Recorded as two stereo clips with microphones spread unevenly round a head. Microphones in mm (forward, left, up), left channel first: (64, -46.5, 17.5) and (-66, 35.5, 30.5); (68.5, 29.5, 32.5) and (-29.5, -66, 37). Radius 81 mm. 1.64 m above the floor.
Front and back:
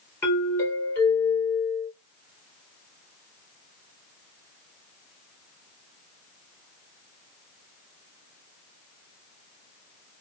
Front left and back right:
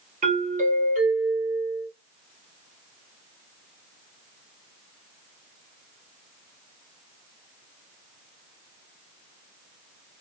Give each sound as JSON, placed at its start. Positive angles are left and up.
{"t": 0.2, "sound": "a doorbell", "azimuth_deg": -105, "distance_m": 1.9}